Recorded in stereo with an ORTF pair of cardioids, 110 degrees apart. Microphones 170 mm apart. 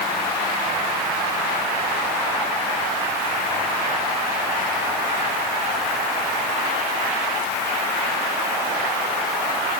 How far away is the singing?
No singing in this recording.